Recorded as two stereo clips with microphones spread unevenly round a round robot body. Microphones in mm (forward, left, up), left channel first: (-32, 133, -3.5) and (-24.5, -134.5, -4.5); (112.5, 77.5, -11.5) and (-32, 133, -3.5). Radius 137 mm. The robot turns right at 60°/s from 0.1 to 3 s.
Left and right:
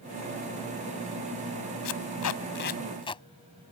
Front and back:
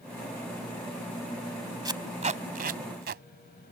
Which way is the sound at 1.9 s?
95° left.